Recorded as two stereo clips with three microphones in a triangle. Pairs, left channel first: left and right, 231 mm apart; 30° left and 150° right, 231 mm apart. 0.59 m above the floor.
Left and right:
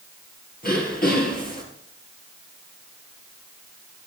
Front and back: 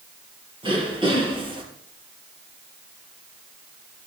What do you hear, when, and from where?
0.6 s throat clearing: 140° left, 3.5 m